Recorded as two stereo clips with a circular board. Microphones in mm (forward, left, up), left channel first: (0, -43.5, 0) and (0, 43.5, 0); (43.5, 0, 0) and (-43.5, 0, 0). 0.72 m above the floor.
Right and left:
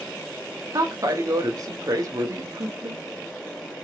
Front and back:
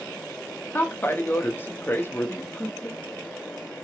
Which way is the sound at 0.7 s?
60° left.